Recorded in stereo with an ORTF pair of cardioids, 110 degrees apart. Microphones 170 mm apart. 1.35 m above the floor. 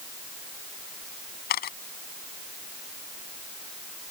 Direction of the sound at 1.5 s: 65° left.